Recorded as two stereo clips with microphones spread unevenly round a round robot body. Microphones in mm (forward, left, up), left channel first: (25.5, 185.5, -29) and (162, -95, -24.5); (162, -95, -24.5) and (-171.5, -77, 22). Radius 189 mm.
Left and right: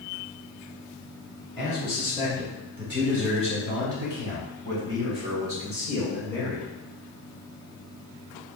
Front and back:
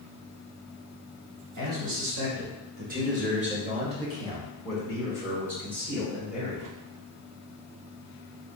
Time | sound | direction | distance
1.6 | a man speaking | 150° right | 1.4 m